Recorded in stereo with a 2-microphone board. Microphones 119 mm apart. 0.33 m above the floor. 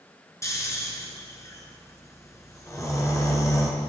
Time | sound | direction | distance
0.4 | snoring | 25° left (ahead or behind) | 2.5 m